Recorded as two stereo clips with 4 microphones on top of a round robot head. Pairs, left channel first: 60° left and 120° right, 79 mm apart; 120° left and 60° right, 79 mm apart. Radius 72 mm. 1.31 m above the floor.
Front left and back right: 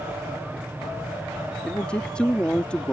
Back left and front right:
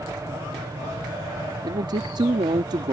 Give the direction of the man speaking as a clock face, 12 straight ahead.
1 o'clock.